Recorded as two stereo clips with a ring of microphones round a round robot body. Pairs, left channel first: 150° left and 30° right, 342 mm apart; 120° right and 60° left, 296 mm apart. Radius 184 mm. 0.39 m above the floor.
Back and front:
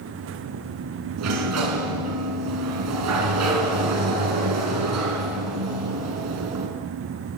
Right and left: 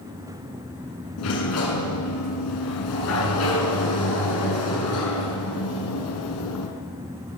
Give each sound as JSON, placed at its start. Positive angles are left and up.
{"t": 1.2, "sound": "a sliding door", "azimuth_deg": -75, "distance_m": 6.5}